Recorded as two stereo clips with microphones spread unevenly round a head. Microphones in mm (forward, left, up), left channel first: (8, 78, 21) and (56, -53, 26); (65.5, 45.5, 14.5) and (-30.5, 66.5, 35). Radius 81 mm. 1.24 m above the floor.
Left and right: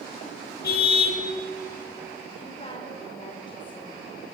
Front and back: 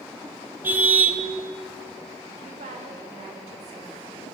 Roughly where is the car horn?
Left.